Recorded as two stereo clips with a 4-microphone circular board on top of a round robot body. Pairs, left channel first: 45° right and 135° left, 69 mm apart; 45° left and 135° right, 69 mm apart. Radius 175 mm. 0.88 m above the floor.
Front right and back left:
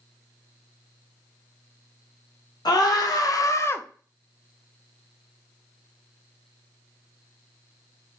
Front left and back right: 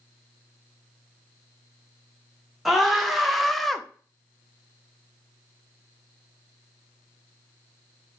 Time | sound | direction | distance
2.6 | a scream | 45° right | 1.4 m